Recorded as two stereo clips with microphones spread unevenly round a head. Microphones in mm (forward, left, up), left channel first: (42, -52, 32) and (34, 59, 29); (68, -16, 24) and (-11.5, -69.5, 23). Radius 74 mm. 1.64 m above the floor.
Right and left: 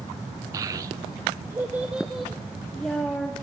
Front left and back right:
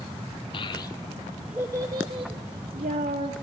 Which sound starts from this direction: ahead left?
A child speaking, at 0.5 s.